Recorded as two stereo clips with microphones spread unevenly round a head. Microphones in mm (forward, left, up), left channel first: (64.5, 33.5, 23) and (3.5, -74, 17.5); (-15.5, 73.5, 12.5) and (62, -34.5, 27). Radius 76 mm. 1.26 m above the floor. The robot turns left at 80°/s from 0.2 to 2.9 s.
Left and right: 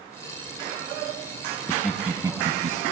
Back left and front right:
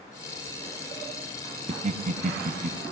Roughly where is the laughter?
Ahead.